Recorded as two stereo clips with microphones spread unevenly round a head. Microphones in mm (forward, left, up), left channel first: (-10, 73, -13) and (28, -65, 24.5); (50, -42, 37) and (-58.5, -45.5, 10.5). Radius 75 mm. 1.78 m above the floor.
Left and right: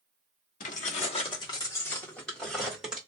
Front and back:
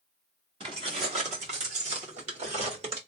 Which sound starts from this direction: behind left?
Keys jangling, at 0.6 s.